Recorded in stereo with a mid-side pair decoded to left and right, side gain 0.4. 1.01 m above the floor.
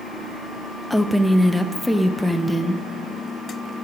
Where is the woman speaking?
5° left, 0.6 m.